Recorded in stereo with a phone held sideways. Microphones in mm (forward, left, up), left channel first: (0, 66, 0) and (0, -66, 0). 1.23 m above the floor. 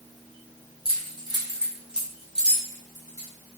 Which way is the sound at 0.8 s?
40° right (ahead or behind).